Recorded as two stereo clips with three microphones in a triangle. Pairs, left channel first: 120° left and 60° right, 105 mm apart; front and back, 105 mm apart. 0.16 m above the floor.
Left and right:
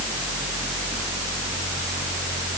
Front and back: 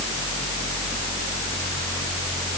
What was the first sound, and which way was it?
Only background noise.